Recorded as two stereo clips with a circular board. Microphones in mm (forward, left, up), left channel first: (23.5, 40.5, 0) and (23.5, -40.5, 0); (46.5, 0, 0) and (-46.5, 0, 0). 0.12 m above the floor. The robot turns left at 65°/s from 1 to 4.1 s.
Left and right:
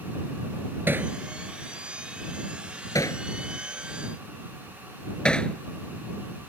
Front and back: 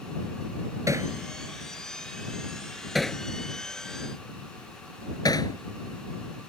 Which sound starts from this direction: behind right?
Hammering, at 0.9 s.